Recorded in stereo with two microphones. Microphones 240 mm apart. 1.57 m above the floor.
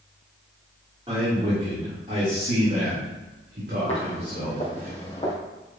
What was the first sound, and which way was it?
A man speaking, 25° right (ahead or behind).